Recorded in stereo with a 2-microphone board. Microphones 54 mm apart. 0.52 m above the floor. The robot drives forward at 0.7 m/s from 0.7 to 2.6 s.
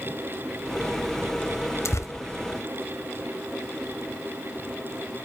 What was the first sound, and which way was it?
Tearing paper, 65° left (ahead or behind).